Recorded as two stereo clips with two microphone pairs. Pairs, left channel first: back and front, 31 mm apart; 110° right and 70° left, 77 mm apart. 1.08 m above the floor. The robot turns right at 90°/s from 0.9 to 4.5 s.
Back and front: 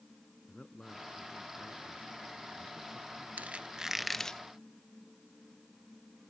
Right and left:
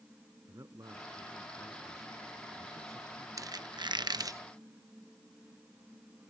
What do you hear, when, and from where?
0.5 s a man speaking: 115° left; by 3.3 s 30° right
3.4 s a squeak: 30° left; by 4.4 s 120° left